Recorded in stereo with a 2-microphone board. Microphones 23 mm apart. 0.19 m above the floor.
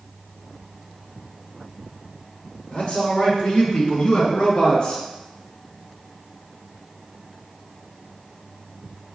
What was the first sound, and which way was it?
A man speaking, 40° left (ahead or behind).